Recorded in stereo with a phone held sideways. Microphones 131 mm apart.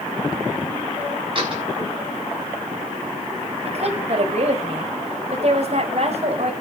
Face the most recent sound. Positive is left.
turn(degrees=-55)  # may be behind; listen again after turning